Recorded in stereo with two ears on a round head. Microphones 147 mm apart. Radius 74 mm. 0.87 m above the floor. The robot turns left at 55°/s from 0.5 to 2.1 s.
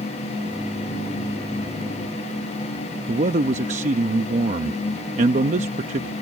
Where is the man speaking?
45° right (ahead or behind).